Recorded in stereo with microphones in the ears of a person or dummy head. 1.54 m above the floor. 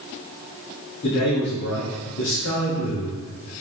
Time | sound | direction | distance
1.0 | a man speaking | 50° left (ahead or behind) | 3 m